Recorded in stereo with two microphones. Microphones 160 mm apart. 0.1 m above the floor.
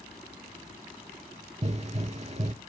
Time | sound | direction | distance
1.6 | a pop | 45° right (ahead or behind) | 0.5 m